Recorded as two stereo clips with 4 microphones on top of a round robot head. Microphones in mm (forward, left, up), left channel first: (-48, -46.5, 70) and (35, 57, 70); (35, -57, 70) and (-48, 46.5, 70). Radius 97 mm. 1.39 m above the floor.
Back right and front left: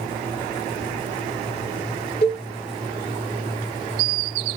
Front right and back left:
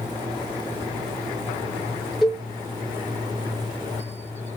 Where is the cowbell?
140° right, 1.1 m.